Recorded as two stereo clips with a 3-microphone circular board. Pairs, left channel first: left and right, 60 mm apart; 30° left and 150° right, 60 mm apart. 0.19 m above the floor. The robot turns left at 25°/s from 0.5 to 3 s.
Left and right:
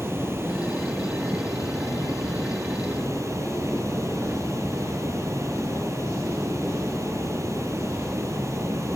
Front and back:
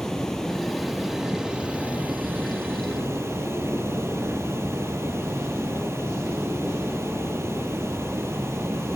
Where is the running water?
55° right, 2.5 m; by 8.9 s 115° right, 2.5 m.